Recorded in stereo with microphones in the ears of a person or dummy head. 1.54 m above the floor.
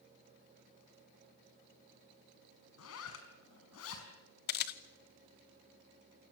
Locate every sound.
2.8 s a zipper: 80° left, 5 m
4.5 s a camera shutter: 55° left (ahead or behind), 1.0 m